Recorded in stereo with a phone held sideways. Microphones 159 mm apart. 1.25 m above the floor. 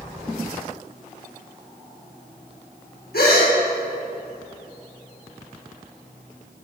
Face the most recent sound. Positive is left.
turn(degrees=80)